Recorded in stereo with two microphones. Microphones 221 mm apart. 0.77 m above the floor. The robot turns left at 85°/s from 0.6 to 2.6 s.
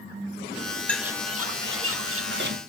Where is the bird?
5° left, 1.0 m; by 2.6 s 140° right, 1.0 m.